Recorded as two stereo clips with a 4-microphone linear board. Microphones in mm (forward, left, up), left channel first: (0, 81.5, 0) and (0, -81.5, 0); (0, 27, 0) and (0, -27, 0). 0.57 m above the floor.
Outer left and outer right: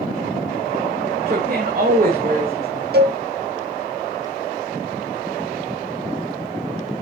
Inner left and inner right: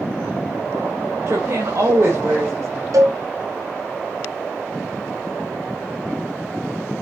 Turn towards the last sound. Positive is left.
turn(degrees=-85)